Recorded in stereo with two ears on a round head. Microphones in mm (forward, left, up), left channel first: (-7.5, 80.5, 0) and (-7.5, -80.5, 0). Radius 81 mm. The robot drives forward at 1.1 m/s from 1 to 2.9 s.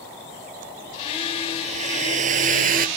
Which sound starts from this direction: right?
A hair dryer, at 1.6 s.